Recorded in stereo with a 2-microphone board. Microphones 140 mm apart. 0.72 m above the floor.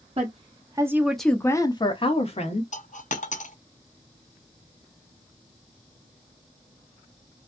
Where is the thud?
No thud in this recording.